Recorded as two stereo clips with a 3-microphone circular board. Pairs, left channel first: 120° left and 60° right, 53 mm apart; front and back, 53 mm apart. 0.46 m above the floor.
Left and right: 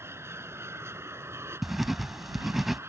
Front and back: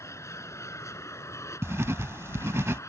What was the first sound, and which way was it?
An aircraft, 25° right.